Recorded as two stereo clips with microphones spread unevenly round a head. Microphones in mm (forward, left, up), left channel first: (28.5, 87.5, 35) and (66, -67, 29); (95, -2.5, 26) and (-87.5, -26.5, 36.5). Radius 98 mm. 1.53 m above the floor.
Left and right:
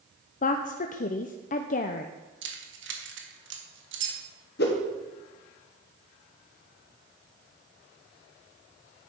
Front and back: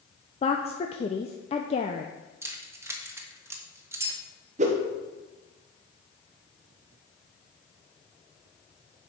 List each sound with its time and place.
0.4 s a woman speaking: 70° left, 0.5 m
2.4 s keys jangling: 100° right, 1.3 m
4.6 s a whoosh: 135° left, 1.5 m